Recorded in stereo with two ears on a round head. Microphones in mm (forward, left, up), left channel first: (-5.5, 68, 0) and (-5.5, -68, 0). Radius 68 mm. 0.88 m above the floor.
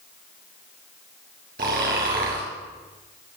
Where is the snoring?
65° right (ahead or behind), 4.5 m.